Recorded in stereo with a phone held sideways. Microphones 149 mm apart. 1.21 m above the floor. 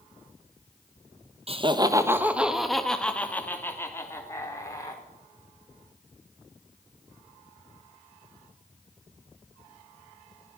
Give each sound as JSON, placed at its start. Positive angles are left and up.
{"t": 1.5, "sound": "laughter", "side_deg": -45, "distance_m": 1.4}